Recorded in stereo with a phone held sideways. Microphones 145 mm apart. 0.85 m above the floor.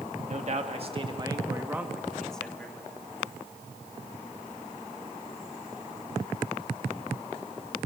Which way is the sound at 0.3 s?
55° right (ahead or behind).